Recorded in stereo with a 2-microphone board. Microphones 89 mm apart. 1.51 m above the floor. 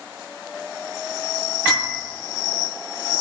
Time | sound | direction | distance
1.6 | a piano | 40° left (ahead or behind) | 9 m